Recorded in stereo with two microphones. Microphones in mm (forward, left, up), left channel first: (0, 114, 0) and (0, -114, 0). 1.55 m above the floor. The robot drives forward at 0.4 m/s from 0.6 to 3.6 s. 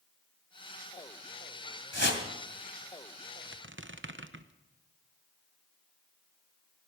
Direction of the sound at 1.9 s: 55° left (ahead or behind).